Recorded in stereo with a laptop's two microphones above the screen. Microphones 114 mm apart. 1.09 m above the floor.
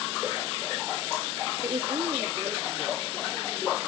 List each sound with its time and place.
1.6 s a woman speaking: 60° right (ahead or behind), 1.5 m; by 3.8 s 35° right (ahead or behind), 4 m